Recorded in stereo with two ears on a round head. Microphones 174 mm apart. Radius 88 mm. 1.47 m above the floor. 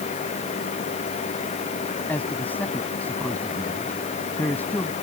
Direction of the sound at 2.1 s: 10° left (ahead or behind).